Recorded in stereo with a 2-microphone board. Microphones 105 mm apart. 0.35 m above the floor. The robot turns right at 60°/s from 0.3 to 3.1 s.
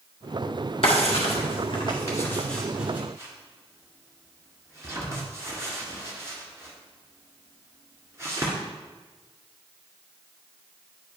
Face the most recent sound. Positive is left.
turn(degrees=-25)  # may be behind; listen again after turning